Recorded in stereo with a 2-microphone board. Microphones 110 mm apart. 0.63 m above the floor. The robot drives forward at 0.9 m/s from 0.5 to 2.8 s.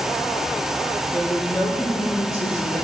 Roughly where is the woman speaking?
Left.